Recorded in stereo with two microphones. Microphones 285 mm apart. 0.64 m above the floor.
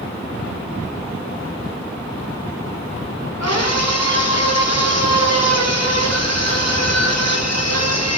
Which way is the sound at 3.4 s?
60° left (ahead or behind).